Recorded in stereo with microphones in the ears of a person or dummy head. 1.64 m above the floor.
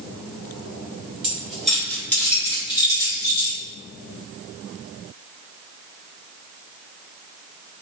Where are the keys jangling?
5° right (ahead or behind), 1.4 m; by 3.6 s 30° left (ahead or behind), 2 m.